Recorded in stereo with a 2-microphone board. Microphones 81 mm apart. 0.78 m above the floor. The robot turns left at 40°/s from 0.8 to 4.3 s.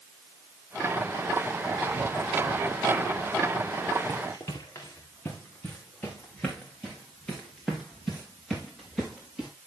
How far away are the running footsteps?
About 3.5 m.